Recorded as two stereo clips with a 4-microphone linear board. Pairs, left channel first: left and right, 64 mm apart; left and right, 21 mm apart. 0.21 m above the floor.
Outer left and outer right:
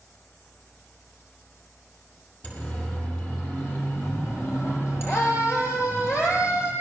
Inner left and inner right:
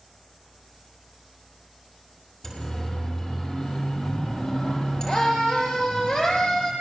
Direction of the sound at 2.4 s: 25° left (ahead or behind).